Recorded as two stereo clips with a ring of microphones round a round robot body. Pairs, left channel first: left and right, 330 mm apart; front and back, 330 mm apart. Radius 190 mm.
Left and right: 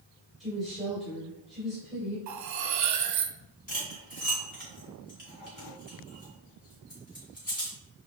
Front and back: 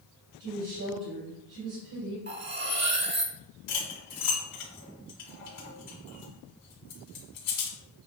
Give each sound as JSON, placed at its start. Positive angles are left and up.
{"t": 0.4, "sound": "a woman speaking", "azimuth_deg": 180, "distance_m": 2.5}
{"t": 2.3, "sound": "cutlery clinking", "azimuth_deg": -125, "distance_m": 0.8}
{"t": 3.7, "sound": "cutlery clinking", "azimuth_deg": 25, "distance_m": 2.0}